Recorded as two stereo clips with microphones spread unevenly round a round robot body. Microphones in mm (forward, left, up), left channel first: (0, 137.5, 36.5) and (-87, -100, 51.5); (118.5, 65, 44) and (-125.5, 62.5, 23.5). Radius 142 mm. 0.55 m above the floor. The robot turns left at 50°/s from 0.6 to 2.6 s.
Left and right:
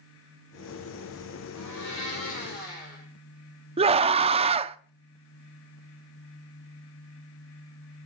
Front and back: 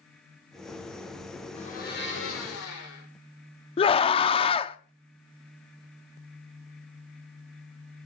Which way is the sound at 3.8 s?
55° right.